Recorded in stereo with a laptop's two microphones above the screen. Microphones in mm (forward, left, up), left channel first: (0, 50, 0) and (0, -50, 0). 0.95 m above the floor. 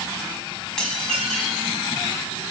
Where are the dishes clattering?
5° left (ahead or behind), 4.5 m.